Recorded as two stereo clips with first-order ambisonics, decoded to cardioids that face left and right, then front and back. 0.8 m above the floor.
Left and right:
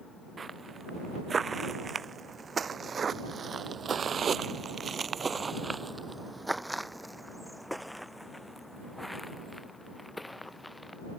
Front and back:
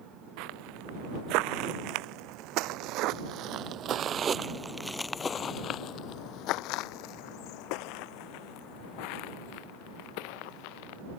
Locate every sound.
0.4 s footsteps: 165° right; by 11.0 s 5° left